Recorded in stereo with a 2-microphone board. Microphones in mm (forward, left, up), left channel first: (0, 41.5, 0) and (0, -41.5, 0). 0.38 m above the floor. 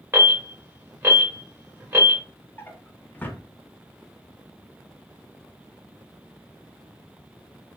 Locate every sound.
0.1 s an alarm: 25° right (ahead or behind), 1.7 m
2.6 s a drawer: 20° left (ahead or behind), 0.5 m